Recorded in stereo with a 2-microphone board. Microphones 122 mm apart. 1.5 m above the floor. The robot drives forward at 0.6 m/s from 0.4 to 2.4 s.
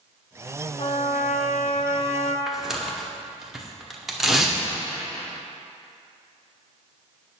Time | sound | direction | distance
0.8 | a trumpet | 55° left (ahead or behind) | 0.6 m
2.5 | tearing paper | 5° right (ahead or behind) | 0.9 m